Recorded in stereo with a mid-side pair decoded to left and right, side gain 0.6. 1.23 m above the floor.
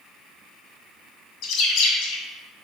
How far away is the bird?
About 2 m.